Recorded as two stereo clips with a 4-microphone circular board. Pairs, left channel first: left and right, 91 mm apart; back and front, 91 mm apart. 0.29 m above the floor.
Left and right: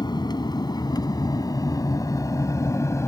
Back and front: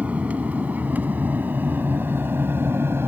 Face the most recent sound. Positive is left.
turn(degrees=50)